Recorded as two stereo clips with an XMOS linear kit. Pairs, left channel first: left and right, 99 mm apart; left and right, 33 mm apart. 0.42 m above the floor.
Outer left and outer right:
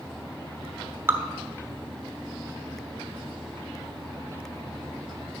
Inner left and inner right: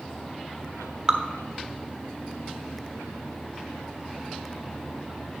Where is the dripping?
25° right (ahead or behind), 1.1 m.